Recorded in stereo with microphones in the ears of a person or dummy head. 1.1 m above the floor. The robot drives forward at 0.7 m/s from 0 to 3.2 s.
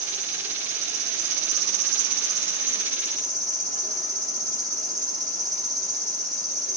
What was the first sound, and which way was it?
An insect, 25° right (ahead or behind).